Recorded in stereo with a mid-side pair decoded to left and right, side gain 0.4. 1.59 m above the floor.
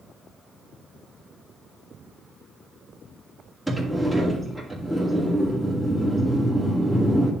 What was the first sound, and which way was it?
A sliding door, 5° right.